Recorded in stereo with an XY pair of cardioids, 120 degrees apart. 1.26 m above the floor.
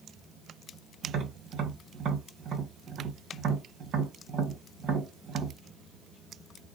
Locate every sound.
1.0 s tapping: 60° right, 1.2 m